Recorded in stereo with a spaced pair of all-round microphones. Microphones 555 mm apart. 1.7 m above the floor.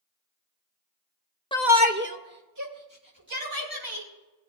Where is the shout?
10° left (ahead or behind), 0.6 m; by 4.1 s 40° right (ahead or behind), 3.5 m.